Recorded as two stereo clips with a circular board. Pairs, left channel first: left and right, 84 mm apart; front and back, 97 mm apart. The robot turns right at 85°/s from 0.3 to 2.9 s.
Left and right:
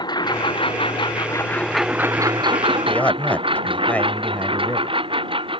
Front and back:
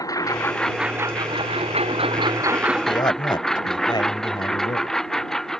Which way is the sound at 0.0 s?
55° left.